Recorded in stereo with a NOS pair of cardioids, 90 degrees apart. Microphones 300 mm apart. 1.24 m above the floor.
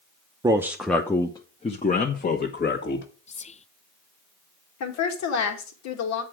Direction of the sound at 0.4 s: 15° right.